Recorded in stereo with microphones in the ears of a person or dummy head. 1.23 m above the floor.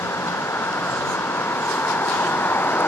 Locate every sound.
0.0 s a vehicle: 10° left (ahead or behind)